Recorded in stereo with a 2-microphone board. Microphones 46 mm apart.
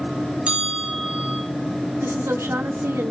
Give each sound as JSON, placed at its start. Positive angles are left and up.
{"t": 0.5, "sound": "a bell", "side_deg": -25, "distance_m": 8.0}
{"t": 2.0, "sound": "a woman speaking", "side_deg": -75, "distance_m": 3.0}